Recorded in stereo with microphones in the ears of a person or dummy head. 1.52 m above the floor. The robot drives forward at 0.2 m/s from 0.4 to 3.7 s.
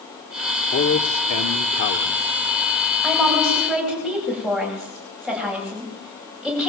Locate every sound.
0.7 s a man speaking: 65° left (ahead or behind), 1.5 m; by 2.3 s 75° left (ahead or behind), 1.4 m
3.0 s a woman speaking: centre (ahead or behind), 9.5 m